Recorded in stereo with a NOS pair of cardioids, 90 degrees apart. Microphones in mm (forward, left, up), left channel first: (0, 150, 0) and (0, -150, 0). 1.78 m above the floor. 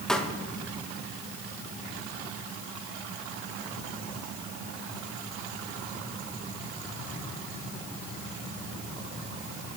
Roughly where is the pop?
Ahead.